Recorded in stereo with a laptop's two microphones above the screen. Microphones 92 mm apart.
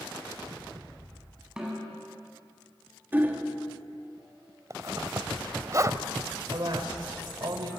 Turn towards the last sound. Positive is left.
turn(degrees=-55)  # may be behind; listen again after turning